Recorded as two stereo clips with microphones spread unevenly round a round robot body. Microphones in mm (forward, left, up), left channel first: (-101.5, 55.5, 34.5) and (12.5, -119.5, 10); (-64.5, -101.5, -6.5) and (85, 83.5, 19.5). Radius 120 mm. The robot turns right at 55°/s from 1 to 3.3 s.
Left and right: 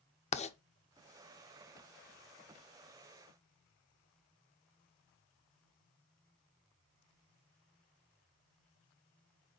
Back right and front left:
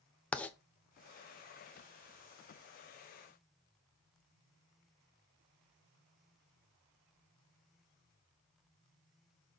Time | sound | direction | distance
0.3 | writing | 165° left | 0.7 m